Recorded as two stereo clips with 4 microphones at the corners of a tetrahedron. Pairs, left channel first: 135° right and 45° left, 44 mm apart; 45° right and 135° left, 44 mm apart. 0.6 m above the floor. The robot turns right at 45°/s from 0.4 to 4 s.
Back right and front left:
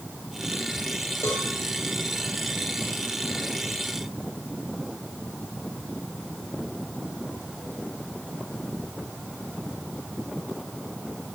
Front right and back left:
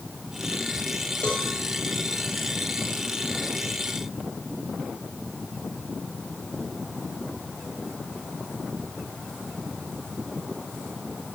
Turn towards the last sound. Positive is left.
turn(degrees=15)